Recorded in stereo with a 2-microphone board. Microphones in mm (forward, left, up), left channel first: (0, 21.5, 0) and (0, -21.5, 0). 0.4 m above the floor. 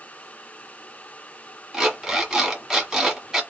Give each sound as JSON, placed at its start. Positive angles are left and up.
{"t": 1.7, "sound": "an alarm clock", "side_deg": -10, "distance_m": 1.4}